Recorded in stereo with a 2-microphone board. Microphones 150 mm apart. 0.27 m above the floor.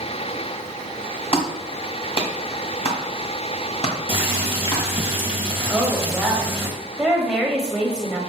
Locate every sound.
1.3 s a clap: 40° left (ahead or behind), 1.6 m
4.1 s boiling: 40° left (ahead or behind), 2 m
5.7 s a woman speaking: 5° right (ahead or behind), 1.5 m